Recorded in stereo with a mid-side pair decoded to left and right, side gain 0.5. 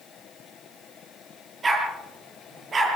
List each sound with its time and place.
1.6 s a dog barking: 30° right, 9.5 m; by 3.0 s 35° right, 9.5 m